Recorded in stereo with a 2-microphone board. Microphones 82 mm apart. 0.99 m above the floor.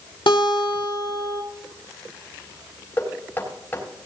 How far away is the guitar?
About 2.5 m.